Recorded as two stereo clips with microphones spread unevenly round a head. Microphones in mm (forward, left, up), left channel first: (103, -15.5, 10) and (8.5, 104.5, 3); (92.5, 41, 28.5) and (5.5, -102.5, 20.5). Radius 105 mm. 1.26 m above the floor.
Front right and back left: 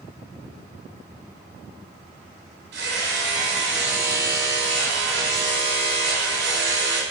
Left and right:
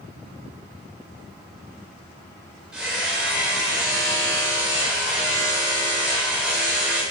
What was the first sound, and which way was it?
Hammering, 150° left.